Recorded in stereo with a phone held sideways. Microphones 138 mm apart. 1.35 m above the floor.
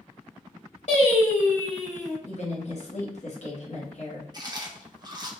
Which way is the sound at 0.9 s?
60° left (ahead or behind).